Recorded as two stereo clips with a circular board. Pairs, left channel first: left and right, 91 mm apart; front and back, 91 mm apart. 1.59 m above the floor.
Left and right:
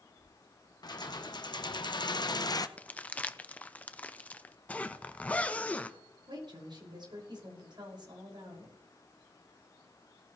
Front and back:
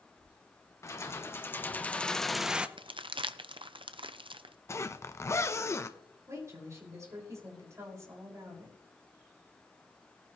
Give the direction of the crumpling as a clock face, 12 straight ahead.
7 o'clock.